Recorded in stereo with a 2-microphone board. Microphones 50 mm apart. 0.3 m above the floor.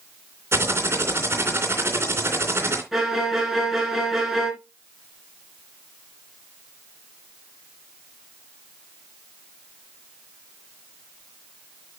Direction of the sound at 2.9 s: 5° right (ahead or behind).